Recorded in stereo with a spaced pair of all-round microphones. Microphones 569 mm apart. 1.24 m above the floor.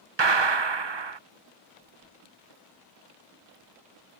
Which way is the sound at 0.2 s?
50° right (ahead or behind).